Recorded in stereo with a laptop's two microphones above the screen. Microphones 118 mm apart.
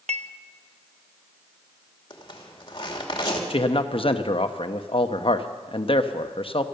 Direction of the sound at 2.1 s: 40° left (ahead or behind).